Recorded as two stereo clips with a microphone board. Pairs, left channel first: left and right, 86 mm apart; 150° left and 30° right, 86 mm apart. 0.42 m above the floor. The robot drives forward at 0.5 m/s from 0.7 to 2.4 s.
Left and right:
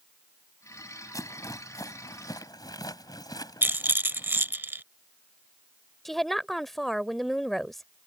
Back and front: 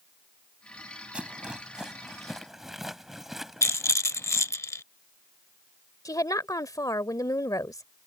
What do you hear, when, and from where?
1.1 s a rattle: 45° left; by 4.5 s 55° left
3.6 s a rattle: 155° right
6.0 s a woman speaking: 175° left